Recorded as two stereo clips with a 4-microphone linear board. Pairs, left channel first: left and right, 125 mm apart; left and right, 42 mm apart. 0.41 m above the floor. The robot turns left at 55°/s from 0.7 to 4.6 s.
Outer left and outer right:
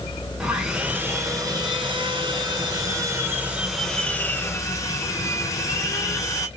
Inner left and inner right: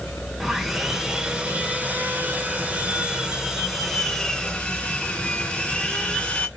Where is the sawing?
10° right, 1.5 m; by 6.5 s 135° left, 1.5 m.